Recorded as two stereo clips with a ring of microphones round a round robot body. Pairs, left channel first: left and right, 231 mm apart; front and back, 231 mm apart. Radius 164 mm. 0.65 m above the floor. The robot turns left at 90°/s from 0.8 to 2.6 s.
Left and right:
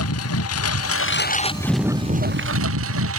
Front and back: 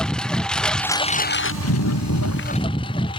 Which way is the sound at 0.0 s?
85° left.